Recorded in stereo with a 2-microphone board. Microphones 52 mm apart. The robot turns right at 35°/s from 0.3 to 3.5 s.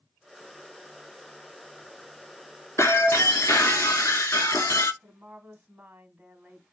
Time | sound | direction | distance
2.8 | breaking glass | 65° left (ahead or behind) | 0.6 m
5.0 | a woman speaking | 30° right (ahead or behind) | 1.2 m